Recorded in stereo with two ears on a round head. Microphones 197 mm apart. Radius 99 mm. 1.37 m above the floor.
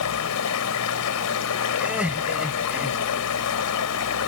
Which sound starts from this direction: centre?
Laughter, at 1.8 s.